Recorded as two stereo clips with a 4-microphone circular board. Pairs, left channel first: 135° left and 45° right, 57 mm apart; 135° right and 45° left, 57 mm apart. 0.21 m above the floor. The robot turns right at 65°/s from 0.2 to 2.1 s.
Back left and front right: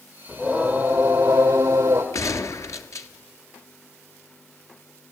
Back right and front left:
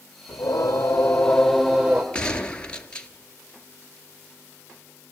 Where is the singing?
125° right, 2.5 m; by 2.0 s 15° right, 2.5 m.